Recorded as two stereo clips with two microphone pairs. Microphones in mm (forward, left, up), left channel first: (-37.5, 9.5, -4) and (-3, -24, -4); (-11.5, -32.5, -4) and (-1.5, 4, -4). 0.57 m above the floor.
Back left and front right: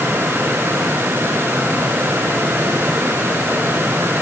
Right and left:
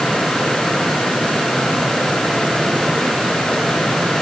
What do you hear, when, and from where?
Only background noise.